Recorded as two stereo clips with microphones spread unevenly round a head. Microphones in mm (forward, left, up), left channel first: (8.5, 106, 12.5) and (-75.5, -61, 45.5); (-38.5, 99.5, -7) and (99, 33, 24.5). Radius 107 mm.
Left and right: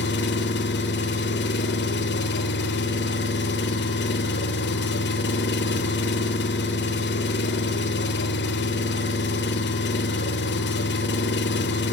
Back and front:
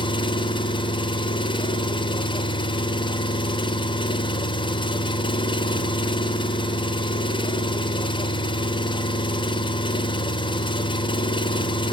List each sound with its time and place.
0.0 s an engine running: 90° left, 1.1 m